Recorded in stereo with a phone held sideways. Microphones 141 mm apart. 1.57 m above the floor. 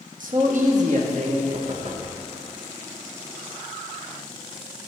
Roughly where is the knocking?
Right.